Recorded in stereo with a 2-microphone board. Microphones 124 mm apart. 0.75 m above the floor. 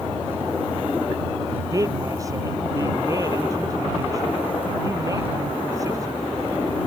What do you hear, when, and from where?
1.7 s a man speaking: 25° right (ahead or behind)